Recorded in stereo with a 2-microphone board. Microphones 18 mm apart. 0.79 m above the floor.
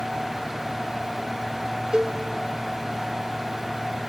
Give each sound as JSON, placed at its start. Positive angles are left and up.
{"t": 1.9, "sound": "a cowbell", "side_deg": -50, "distance_m": 0.7}